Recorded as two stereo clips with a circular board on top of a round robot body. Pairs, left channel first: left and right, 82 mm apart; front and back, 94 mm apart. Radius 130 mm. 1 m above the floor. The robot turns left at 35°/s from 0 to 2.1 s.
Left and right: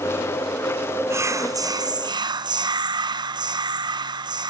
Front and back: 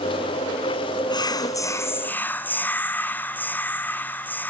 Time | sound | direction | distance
1.1 | whispering | 35° right | 0.9 m